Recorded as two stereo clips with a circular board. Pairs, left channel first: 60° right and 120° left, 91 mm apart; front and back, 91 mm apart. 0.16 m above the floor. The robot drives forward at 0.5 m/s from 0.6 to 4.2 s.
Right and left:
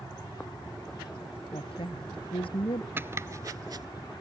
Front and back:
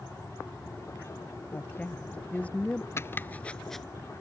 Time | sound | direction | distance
1.5 | a woman speaking | 70° right | ?
3.0 | chopping | 55° left | ?